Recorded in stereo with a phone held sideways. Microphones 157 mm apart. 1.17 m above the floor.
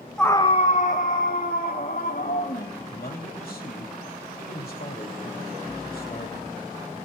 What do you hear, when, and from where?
0.2 s a scream: centre (ahead or behind), 0.5 m; by 2.7 s 75° left (ahead or behind), 3.5 m
2.8 s a man speaking: 70° left (ahead or behind), 3 m